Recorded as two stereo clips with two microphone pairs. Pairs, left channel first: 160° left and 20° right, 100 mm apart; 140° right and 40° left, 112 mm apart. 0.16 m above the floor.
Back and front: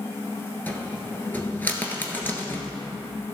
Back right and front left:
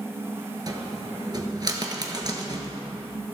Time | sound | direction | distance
0.7 | a cupboard door | 90° left | 1.3 m